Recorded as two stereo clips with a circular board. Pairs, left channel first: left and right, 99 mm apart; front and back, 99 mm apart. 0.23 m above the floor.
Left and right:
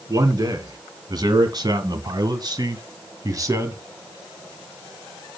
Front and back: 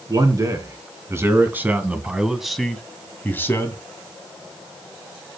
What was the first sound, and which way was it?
A man speaking, 135° right.